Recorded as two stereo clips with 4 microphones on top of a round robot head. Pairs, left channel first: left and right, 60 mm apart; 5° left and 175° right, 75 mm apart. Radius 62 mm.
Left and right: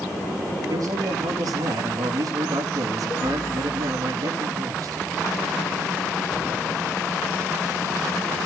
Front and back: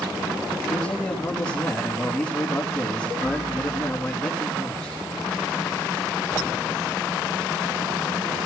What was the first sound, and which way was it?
A man speaking, 75° right.